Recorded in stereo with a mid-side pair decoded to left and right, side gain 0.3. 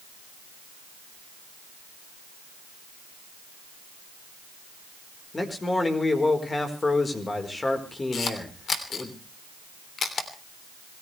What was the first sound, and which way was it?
A man speaking, 35° left.